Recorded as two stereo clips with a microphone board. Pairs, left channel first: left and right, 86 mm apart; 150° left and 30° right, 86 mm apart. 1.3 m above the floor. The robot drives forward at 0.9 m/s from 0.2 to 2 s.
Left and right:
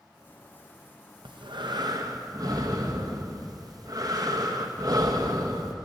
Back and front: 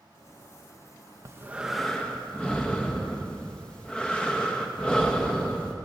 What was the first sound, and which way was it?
Breathing, 80° right.